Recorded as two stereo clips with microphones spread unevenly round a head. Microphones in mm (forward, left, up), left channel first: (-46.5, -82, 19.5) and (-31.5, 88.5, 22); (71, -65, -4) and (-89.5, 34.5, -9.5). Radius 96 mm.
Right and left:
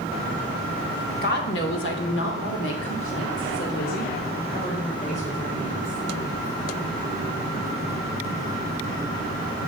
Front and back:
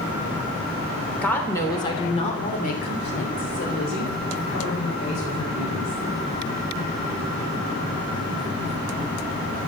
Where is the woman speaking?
115° right, 3 m; by 6.0 s 30° right, 6 m.